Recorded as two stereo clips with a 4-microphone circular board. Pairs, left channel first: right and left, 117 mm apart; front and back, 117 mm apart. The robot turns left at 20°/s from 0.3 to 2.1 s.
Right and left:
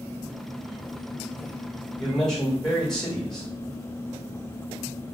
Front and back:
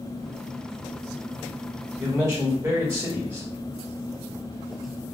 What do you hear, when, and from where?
2.0 s a man speaking: 170° right, 1.3 m